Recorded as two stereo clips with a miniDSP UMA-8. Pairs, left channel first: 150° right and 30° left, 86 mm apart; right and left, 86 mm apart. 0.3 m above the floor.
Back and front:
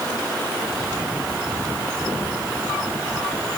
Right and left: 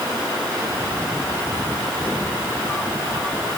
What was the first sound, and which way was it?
Only background noise.